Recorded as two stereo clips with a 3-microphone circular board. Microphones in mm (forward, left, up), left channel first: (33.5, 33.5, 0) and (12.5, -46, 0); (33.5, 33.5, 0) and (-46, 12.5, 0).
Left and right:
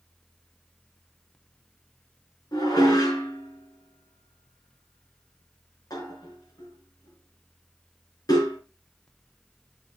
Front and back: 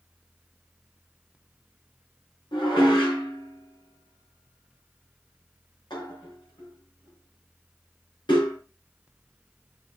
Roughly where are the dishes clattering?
Ahead left.